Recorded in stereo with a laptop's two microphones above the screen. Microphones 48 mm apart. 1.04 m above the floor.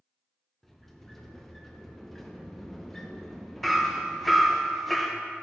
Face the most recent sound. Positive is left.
turn(degrees=5)  # may be behind; listen again after turning